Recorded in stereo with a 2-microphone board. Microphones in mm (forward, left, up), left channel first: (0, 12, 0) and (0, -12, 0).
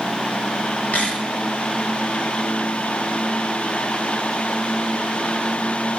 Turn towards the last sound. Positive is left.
turn(degrees=75)  # may be behind; listen again after turning